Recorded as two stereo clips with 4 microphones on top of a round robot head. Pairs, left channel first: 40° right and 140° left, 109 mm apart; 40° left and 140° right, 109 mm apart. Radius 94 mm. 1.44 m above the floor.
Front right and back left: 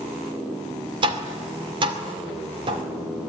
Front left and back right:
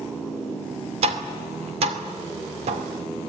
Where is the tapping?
175° right, 2.5 m.